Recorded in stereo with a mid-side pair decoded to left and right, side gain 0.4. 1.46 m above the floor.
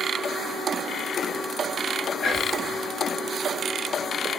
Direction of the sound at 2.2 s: 55° left.